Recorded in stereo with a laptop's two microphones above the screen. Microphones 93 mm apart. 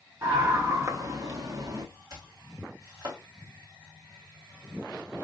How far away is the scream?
About 1.2 m.